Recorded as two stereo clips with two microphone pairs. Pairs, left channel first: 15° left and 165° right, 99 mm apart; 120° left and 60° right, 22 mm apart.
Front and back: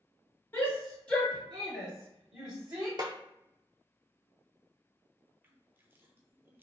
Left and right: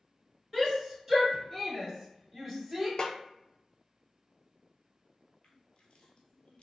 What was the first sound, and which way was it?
A shout, 40° left.